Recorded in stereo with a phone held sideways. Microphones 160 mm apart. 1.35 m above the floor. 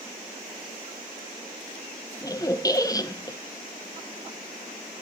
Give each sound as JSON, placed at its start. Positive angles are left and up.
{"t": 2.2, "sound": "a squeak", "side_deg": 25, "distance_m": 0.7}